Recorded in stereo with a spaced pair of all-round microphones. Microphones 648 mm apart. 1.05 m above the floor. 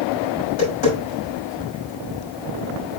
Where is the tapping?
80° left, 6 m.